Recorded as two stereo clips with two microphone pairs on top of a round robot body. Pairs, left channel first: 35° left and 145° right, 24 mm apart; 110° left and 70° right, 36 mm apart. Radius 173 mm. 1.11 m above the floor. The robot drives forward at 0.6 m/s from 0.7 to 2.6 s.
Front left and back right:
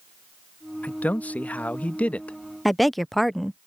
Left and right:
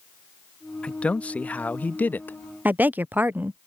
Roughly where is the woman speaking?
Ahead right.